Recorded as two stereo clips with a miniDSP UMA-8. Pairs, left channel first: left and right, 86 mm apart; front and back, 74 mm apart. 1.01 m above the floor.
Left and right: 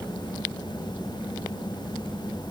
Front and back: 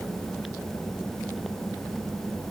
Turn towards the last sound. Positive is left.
No sound to turn to.